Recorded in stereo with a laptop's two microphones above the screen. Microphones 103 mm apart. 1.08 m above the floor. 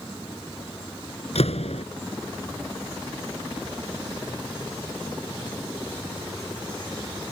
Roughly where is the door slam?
Left.